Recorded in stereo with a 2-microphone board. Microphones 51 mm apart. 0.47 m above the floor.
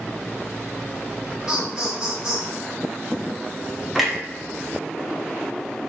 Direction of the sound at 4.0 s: Centre (ahead or behind).